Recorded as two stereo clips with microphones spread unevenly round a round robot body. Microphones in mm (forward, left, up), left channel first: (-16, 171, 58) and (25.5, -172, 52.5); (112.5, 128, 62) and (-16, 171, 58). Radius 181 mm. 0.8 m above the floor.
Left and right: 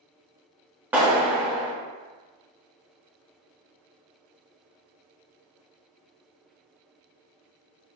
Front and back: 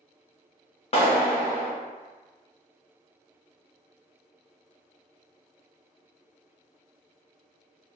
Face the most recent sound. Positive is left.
turn(degrees=0)